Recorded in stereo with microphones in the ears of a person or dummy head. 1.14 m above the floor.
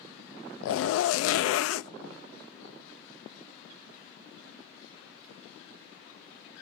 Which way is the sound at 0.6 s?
75° left (ahead or behind).